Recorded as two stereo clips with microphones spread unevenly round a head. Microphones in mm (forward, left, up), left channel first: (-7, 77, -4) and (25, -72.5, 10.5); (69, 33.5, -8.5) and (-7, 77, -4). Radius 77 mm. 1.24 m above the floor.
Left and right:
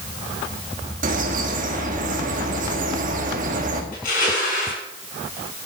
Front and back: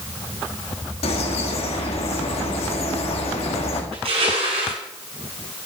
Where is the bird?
40° right, 1.9 m.